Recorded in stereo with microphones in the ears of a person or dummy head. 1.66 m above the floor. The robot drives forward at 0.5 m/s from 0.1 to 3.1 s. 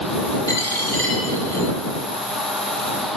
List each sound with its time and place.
0.5 s a dropped coin: 15° left (ahead or behind), 2.5 m; by 1.7 s 10° left (ahead or behind), 3 m